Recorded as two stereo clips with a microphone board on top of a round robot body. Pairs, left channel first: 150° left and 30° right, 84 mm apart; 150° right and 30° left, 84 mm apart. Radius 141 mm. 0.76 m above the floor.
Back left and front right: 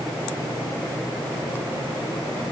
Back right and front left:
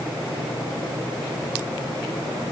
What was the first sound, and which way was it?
Only background noise.